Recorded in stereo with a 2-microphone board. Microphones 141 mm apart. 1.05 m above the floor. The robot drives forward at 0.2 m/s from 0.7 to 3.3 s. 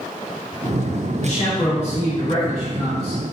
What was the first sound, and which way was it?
A man speaking, 55° left (ahead or behind).